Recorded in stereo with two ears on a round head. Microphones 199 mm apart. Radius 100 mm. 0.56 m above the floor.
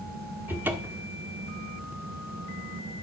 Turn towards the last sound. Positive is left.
turn(degrees=-10)  # may be behind; listen again after turning